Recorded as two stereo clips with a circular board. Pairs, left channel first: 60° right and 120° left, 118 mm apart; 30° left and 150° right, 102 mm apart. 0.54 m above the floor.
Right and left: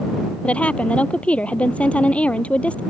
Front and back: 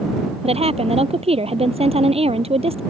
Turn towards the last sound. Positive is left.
turn(degrees=-140)